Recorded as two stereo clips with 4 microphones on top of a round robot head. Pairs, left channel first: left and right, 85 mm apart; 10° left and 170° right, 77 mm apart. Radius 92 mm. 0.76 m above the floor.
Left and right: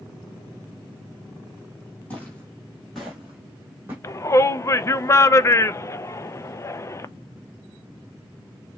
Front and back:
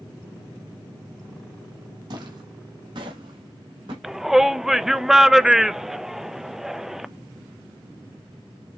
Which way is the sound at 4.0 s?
110° left.